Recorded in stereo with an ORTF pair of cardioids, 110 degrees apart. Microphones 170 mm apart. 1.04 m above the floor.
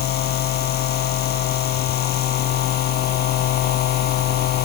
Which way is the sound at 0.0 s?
70° left.